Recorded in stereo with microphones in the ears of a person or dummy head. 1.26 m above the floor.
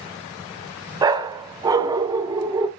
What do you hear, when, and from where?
1.0 s a dog barking: 15° right (ahead or behind), 1.0 m